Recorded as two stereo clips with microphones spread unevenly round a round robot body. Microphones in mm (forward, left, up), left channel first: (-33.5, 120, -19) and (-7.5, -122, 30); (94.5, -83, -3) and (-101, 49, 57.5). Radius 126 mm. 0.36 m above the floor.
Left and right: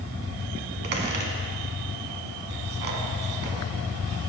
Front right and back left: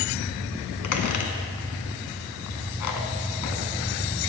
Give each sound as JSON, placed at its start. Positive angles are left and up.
{"t": 0.8, "sound": "a squeak", "azimuth_deg": -30, "distance_m": 1.7}